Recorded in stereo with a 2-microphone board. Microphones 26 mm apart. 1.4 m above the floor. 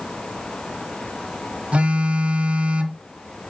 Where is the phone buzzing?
50° right (ahead or behind), 1.9 m.